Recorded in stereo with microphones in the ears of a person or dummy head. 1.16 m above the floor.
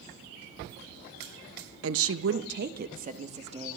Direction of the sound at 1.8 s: 70° right (ahead or behind).